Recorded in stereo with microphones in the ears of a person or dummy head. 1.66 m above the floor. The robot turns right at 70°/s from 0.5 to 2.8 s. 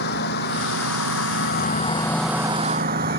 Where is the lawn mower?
60° left; by 3.2 s 140° right.